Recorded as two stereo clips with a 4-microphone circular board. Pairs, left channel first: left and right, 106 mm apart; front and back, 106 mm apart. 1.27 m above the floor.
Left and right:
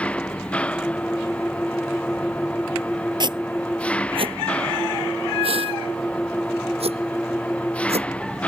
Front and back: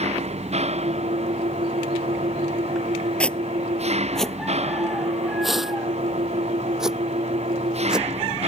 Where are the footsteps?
75° right; by 8.1 s 100° right.